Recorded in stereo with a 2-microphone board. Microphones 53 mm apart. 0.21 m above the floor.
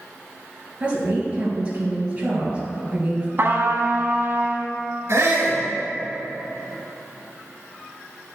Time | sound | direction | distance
0.8 | a woman speaking | 20° right (ahead or behind) | 3 m
3.4 | a trumpet | 45° right (ahead or behind) | 0.9 m
5.1 | a shout | 50° right (ahead or behind) | 2 m